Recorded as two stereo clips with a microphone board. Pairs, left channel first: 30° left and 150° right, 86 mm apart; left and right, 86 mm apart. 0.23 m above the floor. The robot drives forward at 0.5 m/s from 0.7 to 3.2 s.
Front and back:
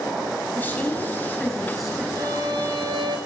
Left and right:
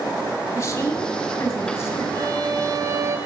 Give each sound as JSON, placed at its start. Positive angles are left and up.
{"t": 0.5, "sound": "a woman speaking", "azimuth_deg": 85, "distance_m": 1.2}
{"t": 2.1, "sound": "a violin", "azimuth_deg": -115, "distance_m": 1.0}